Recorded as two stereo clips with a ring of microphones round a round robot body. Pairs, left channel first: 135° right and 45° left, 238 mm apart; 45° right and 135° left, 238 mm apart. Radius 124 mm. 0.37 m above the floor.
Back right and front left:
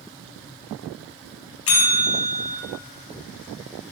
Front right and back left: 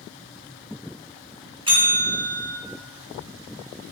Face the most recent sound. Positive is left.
turn(degrees=-155)